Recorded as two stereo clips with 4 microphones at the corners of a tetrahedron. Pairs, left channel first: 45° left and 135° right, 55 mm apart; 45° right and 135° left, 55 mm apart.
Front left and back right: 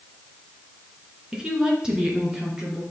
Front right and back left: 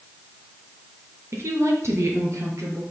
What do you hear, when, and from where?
1.3 s a woman speaking: 150° left, 2.5 m; by 2.8 s 145° left, 3.5 m